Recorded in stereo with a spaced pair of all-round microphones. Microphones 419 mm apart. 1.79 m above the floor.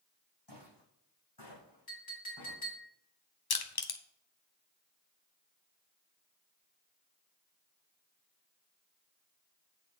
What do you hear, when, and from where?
0.5 s footsteps: 70° left (ahead or behind), 5 m; by 2.6 s 75° left (ahead or behind), 6 m
1.9 s a clink: 60° left (ahead or behind), 2.5 m
3.5 s crushing: 60° left (ahead or behind), 0.7 m